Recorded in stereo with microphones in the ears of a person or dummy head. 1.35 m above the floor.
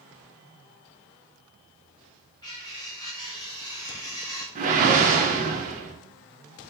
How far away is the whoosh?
About 0.6 m.